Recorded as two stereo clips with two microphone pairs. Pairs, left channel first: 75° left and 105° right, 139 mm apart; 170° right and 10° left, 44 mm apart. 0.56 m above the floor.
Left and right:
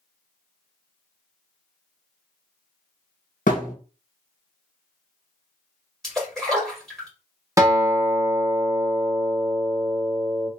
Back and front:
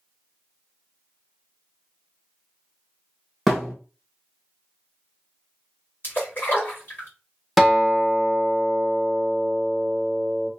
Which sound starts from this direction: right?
A guitar, at 7.6 s.